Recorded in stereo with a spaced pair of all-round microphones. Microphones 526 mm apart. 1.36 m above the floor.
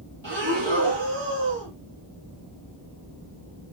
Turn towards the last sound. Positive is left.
turn(degrees=-55)  # may be behind; listen again after turning